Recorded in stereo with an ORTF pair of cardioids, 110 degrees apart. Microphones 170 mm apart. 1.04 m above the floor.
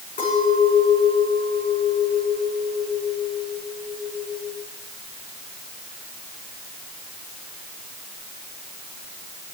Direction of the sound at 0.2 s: 50° left.